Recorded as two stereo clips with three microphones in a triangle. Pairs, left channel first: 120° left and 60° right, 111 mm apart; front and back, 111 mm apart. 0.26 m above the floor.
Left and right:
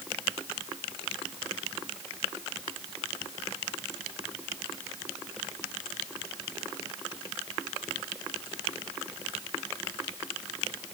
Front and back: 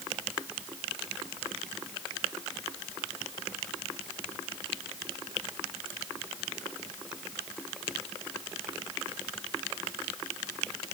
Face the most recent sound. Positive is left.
No sound to turn to.